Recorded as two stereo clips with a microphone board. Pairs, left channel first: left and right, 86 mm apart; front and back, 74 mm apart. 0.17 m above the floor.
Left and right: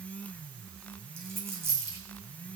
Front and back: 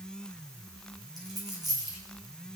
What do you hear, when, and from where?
1.2 s a dropped coin: 150° right, 3 m